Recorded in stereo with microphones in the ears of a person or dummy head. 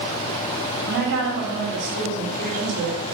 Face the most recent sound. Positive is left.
turn(degrees=-75)  # may be behind; listen again after turning